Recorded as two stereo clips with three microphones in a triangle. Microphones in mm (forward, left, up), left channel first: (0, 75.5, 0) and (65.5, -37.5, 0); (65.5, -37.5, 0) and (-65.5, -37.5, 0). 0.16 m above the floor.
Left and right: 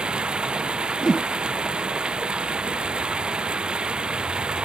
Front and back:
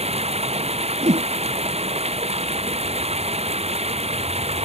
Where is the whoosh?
155° right.